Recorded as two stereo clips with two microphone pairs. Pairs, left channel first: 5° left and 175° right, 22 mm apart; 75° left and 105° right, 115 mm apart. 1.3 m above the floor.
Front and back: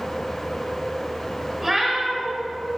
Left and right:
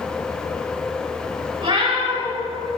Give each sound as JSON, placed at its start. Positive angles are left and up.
{"t": 1.6, "sound": "a cat meowing", "azimuth_deg": -105, "distance_m": 1.4}